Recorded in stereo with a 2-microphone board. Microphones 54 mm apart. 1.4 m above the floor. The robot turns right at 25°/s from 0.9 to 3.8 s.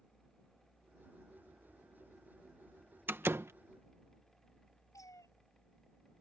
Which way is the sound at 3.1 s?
35° right (ahead or behind).